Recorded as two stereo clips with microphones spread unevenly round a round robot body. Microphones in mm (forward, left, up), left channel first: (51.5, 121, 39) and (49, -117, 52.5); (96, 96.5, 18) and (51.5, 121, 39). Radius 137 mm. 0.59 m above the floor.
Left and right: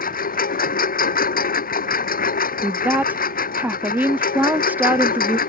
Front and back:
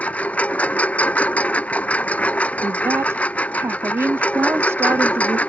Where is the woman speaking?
170° right.